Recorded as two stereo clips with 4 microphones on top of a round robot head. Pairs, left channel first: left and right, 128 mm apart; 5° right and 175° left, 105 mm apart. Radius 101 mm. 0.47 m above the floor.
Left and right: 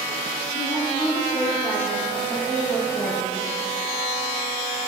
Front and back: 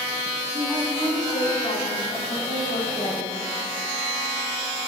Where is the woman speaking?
45° left, 4 m; by 3.4 s 10° left, 6 m.